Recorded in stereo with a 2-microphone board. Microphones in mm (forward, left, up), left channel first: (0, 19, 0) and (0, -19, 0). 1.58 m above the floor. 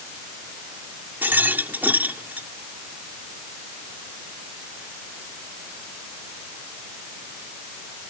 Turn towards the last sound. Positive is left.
turn(degrees=-65)  # may be behind; listen again after turning